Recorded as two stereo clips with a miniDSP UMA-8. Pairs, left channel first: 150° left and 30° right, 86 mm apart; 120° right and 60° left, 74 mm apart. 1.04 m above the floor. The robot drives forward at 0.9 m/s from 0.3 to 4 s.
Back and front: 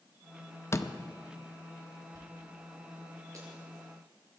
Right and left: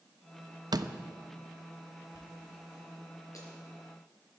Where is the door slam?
90° left, 0.7 m; by 1.0 s 110° left, 0.7 m.